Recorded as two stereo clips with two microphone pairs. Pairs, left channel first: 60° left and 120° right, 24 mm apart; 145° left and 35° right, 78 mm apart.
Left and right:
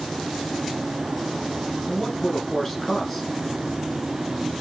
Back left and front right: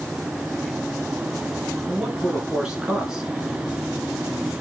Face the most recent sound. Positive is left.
turn(degrees=25)